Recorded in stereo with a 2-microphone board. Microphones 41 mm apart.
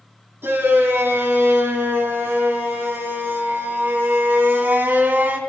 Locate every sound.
0.4 s a shout: 75° right (ahead or behind), 4.5 m; by 5.4 s 50° right (ahead or behind), 2.5 m